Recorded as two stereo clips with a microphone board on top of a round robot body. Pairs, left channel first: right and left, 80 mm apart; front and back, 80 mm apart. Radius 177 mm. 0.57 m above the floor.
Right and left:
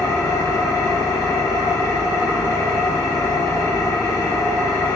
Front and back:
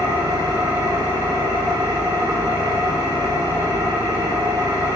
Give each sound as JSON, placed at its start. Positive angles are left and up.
{"t": 0.0, "sound": "an engine running", "azimuth_deg": -135, "distance_m": 2.5}